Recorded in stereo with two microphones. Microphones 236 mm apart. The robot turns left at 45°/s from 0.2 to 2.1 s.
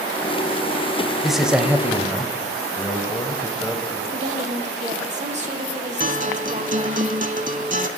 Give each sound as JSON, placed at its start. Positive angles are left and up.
{"t": 1.2, "sound": "a man speaking", "side_deg": 0, "distance_m": 0.9}
{"t": 2.8, "sound": "a man speaking", "side_deg": 5, "distance_m": 1.0}
{"t": 4.1, "sound": "a woman speaking", "side_deg": -30, "distance_m": 1.1}
{"t": 6.0, "sound": "a guitar", "side_deg": -35, "distance_m": 0.6}